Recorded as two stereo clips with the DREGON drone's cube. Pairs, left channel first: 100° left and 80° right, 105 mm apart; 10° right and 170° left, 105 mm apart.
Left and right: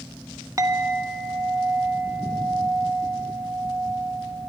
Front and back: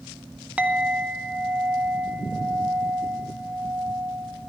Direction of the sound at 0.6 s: 120° right.